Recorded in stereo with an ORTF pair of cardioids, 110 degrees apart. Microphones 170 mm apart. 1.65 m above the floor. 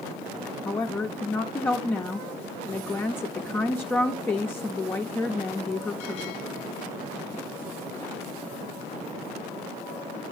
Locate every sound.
0.7 s a woman speaking: 10° left, 0.6 m